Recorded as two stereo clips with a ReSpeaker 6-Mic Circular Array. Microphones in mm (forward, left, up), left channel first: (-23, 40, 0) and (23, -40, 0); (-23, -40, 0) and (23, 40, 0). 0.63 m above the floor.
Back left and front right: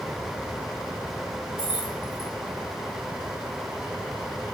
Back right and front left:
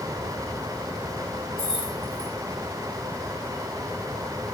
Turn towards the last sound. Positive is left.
turn(degrees=90)